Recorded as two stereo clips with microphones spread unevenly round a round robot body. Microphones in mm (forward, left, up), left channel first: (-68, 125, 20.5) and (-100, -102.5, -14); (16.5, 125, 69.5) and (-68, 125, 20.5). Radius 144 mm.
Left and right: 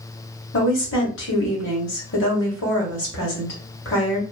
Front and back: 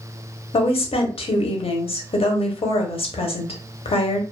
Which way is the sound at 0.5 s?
35° left.